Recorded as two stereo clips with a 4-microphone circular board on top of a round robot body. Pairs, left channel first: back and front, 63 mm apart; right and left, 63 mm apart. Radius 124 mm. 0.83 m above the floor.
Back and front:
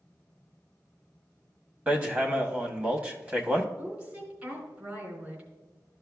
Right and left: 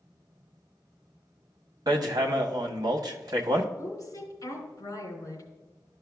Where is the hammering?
70° left, 1.0 m.